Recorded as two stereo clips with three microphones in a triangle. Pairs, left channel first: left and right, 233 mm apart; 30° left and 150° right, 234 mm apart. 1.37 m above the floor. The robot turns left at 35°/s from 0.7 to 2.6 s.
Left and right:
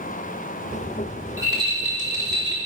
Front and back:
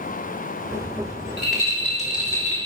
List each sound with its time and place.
1.4 s a rattle: 15° right, 3 m; by 2.6 s 55° right, 3 m